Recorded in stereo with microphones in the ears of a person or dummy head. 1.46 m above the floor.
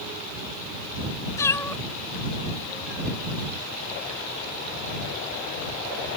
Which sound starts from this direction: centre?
A cat meowing, at 1.4 s.